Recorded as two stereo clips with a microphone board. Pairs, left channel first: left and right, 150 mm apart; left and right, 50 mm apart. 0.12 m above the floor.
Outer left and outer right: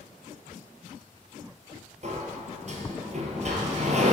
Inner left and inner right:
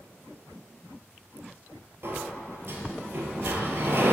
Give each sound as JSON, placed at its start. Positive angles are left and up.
{"t": 2.0, "sound": "a sliding door", "side_deg": -55, "distance_m": 1.0}